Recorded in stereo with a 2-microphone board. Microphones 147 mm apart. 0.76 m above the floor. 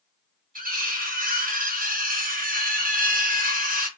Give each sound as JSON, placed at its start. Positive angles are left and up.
{"t": 0.6, "sound": "cutlery clinking", "side_deg": -70, "distance_m": 0.7}